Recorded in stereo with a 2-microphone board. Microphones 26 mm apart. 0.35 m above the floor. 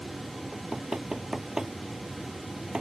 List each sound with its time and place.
0.5 s knocking: 25° right (ahead or behind)